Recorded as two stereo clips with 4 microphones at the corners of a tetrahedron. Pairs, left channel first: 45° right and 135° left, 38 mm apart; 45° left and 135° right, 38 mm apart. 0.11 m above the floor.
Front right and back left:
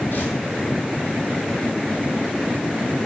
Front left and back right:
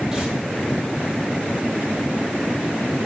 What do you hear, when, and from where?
0.1 s tearing paper: 60° right, 1.8 m